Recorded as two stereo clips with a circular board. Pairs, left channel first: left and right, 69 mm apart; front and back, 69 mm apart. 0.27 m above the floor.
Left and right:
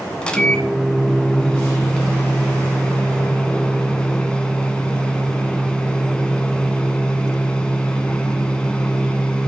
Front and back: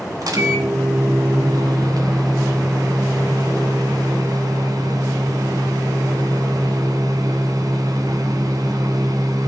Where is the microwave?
165° left, 1.6 m.